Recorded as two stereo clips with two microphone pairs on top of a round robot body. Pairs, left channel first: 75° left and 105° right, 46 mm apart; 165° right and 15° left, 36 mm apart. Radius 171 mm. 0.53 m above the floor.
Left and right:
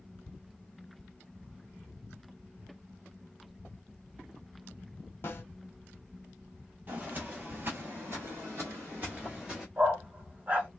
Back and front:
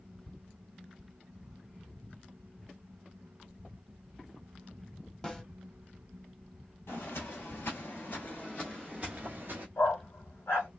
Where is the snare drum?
120° left, 1.3 m.